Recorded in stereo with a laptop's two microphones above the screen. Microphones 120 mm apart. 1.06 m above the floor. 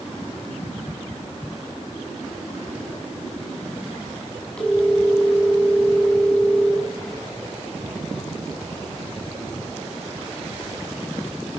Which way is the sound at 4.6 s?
10° left (ahead or behind).